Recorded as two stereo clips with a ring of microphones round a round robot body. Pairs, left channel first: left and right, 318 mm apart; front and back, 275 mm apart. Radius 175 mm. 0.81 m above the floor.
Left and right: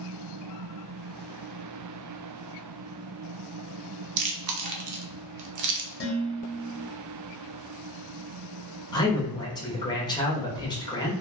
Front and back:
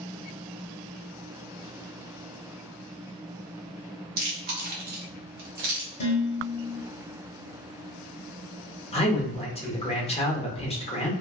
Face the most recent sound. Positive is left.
turn(degrees=30)